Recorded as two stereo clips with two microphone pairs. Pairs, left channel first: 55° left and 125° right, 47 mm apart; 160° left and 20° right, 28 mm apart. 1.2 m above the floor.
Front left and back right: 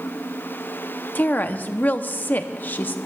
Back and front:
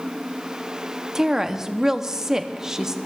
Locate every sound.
1.1 s a woman speaking: 35° left, 0.7 m